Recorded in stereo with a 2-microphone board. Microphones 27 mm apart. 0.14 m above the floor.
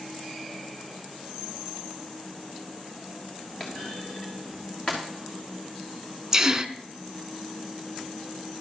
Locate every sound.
3.6 s a clunk: 40° left (ahead or behind), 2.5 m
6.3 s a gasp: 20° right (ahead or behind), 0.6 m